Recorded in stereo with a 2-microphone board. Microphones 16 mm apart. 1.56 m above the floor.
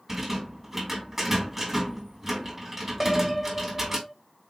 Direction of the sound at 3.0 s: 5° left (ahead or behind).